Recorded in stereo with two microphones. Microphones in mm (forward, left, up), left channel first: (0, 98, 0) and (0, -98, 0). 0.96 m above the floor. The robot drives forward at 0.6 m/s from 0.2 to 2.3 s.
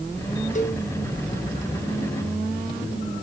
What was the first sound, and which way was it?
A cowbell, 40° left (ahead or behind).